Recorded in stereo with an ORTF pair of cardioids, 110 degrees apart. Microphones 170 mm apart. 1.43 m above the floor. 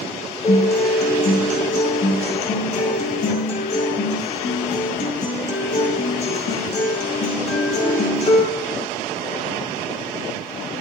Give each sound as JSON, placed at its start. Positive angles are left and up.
{"t": 0.4, "sound": "a guitar", "azimuth_deg": 40, "distance_m": 5.0}